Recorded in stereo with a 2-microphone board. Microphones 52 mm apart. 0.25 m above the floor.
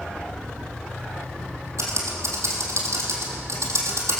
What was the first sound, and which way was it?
Typing on a keyboard, 80° right.